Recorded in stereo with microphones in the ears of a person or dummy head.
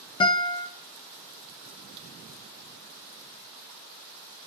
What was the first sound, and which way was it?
A guitar, 15° left (ahead or behind).